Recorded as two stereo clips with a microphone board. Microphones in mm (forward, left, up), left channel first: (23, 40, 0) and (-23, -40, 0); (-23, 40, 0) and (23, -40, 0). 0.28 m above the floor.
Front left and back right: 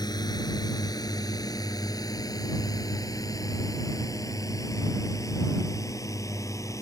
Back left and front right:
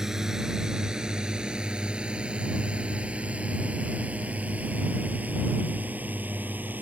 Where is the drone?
25° left; by 6.8 s 10° left.